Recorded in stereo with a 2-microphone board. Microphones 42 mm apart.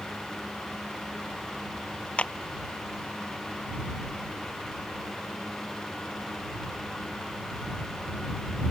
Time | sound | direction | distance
2.2 | a clap | 30° left (ahead or behind) | ?